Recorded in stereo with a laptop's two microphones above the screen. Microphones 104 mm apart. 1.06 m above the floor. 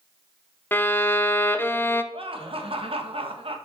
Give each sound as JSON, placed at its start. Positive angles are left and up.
{"t": 0.7, "sound": "a violin", "side_deg": 20, "distance_m": 0.6}
{"t": 2.1, "sound": "laughter", "side_deg": -60, "distance_m": 1.4}